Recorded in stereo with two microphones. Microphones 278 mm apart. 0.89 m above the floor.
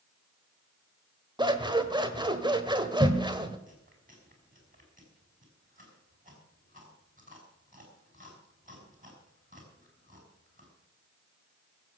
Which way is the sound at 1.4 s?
15° right (ahead or behind).